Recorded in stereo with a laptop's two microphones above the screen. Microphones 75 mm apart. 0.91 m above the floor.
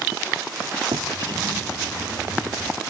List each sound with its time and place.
0.9 s a drawer: 80° right